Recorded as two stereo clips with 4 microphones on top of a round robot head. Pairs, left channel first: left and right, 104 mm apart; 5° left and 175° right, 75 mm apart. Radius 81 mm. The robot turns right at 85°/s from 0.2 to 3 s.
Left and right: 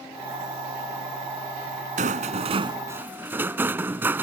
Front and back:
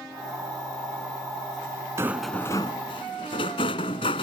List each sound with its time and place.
2.0 s a rattle: 105° right; by 4.2 s 20° right